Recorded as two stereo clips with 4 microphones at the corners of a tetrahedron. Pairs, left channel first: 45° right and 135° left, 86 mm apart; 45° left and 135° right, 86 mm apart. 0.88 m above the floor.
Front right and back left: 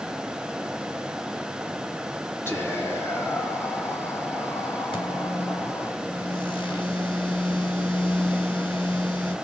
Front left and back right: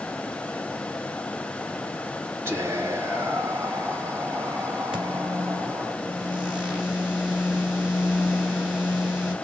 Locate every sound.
2.5 s whispering: 90° right, 1.1 m
4.9 s a microwave: 55° right, 1.7 m